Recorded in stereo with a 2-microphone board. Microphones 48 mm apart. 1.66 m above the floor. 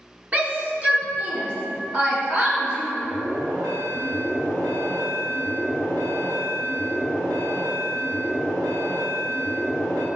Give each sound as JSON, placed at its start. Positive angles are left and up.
{"t": 0.3, "sound": "a shout", "side_deg": -30, "distance_m": 1.1}
{"t": 3.0, "sound": "an alarm", "side_deg": -85, "distance_m": 1.7}